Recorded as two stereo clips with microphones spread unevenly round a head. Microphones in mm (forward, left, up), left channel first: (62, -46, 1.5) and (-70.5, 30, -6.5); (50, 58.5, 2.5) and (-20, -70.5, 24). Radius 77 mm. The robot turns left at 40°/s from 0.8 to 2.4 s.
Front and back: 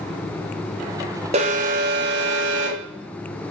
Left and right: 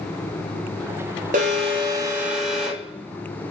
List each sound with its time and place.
1.3 s an alarm: 160° right, 4.5 m; by 3.5 s 155° left, 4.5 m